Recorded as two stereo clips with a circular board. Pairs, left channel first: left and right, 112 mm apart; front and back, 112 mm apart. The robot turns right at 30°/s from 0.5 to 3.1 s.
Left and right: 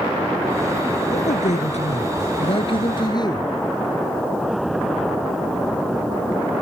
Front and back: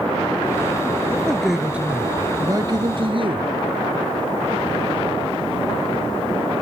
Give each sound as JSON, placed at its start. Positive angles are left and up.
{"t": 1.1, "sound": "a man speaking", "azimuth_deg": 80}